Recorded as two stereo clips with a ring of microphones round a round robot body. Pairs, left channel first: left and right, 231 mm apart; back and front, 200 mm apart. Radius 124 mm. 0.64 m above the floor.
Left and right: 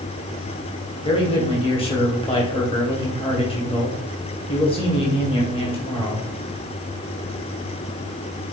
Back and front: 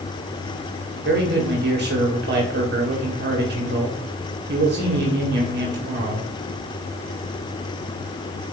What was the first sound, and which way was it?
A man speaking, 25° left.